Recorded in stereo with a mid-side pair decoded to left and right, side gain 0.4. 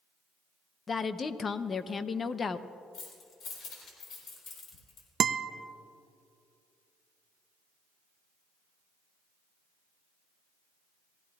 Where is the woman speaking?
45° left, 0.7 m.